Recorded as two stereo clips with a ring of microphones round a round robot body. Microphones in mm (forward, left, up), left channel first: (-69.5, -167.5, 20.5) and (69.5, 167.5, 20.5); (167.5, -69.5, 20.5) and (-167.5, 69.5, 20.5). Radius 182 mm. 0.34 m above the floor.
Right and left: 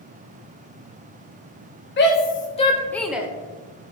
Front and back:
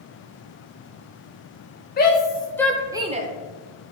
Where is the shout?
70° right, 1.0 m; by 3.3 s 140° left, 0.8 m.